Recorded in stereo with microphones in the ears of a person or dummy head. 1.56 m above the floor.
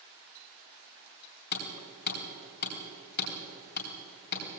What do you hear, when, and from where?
1.5 s hammering: 60° left (ahead or behind), 3 m